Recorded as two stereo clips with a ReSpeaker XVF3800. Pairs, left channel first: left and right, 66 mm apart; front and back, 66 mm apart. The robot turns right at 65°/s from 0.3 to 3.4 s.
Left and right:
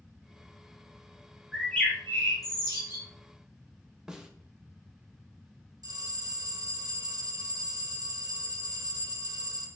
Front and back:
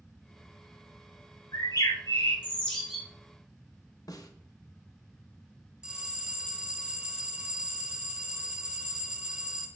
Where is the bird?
Straight ahead, 1.9 m; by 3.0 s 100° left, 1.9 m.